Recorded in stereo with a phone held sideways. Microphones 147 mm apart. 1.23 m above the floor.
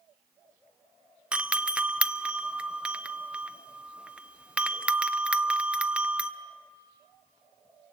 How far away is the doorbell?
About 0.7 m.